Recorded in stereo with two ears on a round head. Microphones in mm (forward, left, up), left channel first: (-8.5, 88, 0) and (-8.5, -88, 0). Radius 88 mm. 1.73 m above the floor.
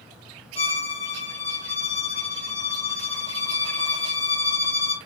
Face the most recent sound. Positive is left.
turn(degrees=30)  # may be behind; listen again after turning